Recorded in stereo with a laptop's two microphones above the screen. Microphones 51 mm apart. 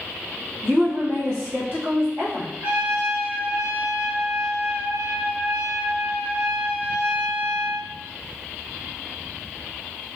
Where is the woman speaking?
35° right (ahead or behind), 0.6 m.